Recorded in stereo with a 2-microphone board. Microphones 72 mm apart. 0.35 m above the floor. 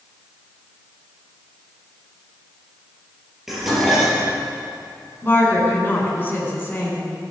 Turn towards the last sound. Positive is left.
turn(degrees=30)  # may be behind; listen again after turning